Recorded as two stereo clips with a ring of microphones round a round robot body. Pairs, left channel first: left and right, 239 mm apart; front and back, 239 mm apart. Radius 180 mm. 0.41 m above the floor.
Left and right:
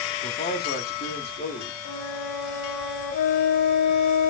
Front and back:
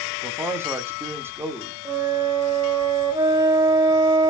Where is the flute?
105° left, 1.0 m.